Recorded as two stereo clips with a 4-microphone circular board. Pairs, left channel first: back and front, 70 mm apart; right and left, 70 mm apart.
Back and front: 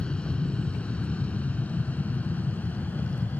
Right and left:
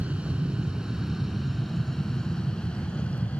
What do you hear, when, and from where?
0.0 s an aircraft: 130° left; by 3.4 s 140° right